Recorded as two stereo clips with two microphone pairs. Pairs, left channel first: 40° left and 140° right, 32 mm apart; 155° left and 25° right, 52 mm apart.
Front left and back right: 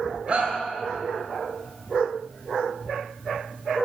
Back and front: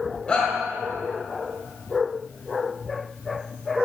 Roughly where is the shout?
Behind right.